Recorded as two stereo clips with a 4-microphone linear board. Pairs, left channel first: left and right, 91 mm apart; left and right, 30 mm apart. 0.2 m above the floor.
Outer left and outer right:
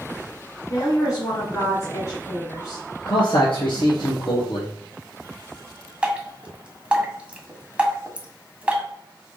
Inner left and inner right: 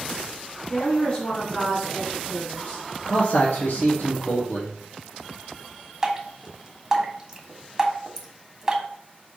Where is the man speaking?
70° left (ahead or behind), 2.5 m.